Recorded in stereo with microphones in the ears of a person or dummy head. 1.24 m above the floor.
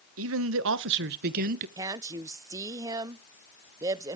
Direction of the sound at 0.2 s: 75° right (ahead or behind).